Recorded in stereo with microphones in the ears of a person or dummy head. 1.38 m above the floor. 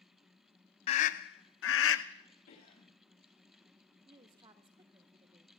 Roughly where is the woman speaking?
Right.